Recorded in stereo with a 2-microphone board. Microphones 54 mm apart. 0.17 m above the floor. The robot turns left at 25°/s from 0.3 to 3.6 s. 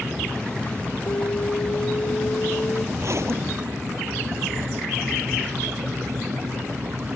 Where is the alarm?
95° left; by 2.9 s 50° left.